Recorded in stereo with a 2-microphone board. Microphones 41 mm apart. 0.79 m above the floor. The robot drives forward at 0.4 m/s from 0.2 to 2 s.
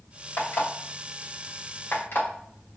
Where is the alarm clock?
60° left (ahead or behind), 2.5 m; by 2.3 s 80° left, 2 m.